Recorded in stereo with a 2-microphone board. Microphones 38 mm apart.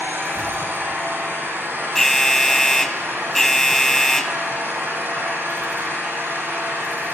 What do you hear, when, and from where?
0.0 s an engine running: 80° right, 5.5 m
1.9 s an alarm: 10° left (ahead or behind), 0.9 m